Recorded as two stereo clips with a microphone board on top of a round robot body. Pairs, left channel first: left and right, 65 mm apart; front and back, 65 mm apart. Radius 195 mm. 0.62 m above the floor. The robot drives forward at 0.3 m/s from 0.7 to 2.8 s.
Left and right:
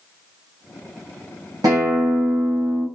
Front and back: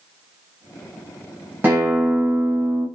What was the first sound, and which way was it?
A guitar, 115° right.